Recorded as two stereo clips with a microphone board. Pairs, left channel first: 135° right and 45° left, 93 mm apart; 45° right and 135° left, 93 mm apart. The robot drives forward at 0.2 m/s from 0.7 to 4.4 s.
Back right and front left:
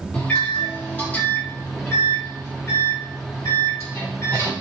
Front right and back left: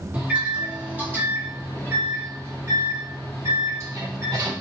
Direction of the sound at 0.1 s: Straight behind.